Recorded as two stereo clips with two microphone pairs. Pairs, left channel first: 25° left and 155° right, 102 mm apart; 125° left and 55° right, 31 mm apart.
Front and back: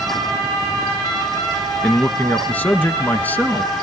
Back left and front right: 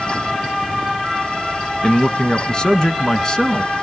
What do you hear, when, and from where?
1.8 s a man speaking: 85° left, 1.2 m